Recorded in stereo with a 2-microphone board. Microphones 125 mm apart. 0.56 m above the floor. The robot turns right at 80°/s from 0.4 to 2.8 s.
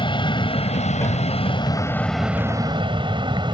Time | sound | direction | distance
0.0 | an aircraft | 40° left (ahead or behind) | ?